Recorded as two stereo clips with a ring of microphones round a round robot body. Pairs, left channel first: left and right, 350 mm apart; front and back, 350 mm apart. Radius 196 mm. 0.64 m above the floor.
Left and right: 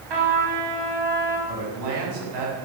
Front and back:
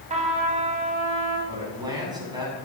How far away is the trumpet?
About 4.5 m.